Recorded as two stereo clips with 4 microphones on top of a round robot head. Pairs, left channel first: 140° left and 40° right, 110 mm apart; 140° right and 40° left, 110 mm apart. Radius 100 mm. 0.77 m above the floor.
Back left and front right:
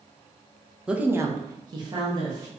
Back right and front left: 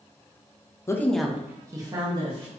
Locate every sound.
0.9 s a woman speaking: 115° right, 0.6 m; by 2.5 s 5° left, 1.3 m